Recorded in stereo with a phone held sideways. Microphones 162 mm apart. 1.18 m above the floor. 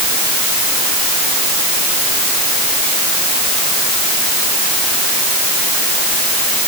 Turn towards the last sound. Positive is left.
No sound to turn to.